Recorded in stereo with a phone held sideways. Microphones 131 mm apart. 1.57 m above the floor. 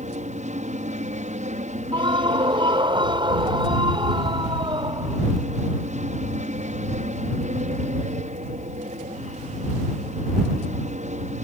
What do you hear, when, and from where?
0.0 s an aircraft: 65° right (ahead or behind)
1.9 s a scream: 40° right (ahead or behind)